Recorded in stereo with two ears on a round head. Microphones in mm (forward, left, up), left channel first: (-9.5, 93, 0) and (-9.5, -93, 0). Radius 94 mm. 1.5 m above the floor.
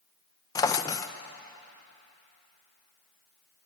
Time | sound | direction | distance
0.6 | a drawer | 15° left (ahead or behind) | 0.6 m